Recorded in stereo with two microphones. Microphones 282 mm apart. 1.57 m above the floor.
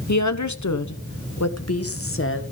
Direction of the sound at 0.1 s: 70° left (ahead or behind).